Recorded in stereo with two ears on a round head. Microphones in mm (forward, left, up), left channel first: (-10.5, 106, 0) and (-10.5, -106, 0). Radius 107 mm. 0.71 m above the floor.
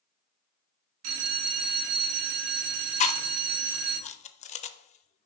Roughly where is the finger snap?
I don't hear a finger snap.